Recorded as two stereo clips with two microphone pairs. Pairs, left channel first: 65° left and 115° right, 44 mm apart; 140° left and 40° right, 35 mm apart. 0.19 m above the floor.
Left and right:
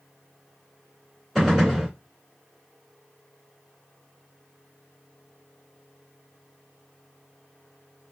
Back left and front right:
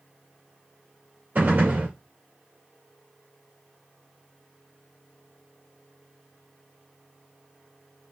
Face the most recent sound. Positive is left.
turn(degrees=-20)